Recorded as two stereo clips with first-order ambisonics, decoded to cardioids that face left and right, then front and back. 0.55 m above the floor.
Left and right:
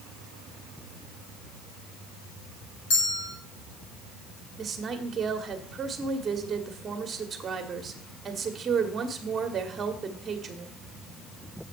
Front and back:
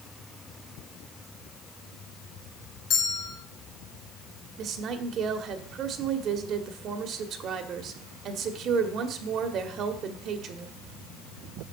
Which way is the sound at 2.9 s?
60° left.